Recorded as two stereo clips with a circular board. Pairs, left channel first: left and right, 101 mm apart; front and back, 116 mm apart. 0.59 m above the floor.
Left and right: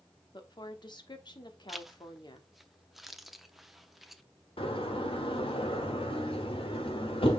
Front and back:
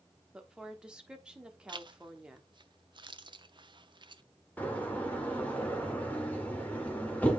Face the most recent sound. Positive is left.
turn(degrees=75)